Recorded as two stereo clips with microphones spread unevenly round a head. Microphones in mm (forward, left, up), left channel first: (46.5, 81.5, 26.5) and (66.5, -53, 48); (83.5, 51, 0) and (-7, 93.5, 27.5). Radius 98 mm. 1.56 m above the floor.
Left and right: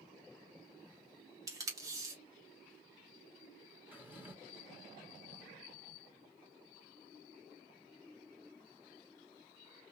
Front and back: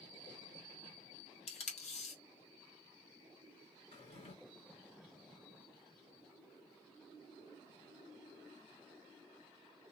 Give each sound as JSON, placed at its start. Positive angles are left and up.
{"t": 1.5, "sound": "tape being pulled", "azimuth_deg": -30, "distance_m": 1.4}
{"t": 3.9, "sound": "a drawer", "azimuth_deg": -10, "distance_m": 1.8}